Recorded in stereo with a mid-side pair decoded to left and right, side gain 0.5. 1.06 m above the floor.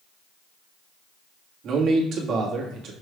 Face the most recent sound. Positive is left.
turn(degrees=-60)